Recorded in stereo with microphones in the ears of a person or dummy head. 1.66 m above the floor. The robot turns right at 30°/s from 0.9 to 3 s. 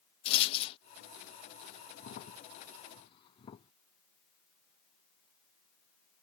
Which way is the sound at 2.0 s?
50° left (ahead or behind).